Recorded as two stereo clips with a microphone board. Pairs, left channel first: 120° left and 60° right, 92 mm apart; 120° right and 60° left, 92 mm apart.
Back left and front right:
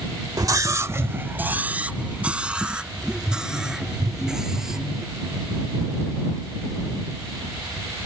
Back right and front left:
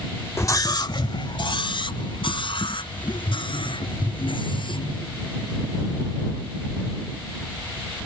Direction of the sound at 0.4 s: 75° right.